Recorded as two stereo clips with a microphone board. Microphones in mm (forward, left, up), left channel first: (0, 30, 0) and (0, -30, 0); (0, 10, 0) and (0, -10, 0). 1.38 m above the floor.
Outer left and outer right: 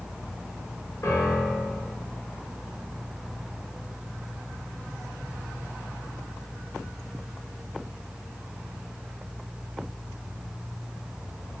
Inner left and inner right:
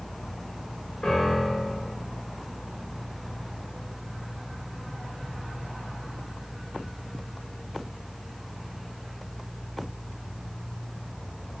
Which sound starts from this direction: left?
A piano, at 1.0 s.